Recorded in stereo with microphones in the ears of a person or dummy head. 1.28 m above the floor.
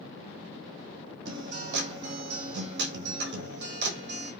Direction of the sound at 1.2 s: 65° right (ahead or behind).